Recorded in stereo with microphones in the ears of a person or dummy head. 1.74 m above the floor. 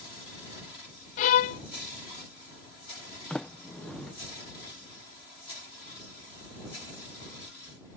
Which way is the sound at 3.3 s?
5° left (ahead or behind).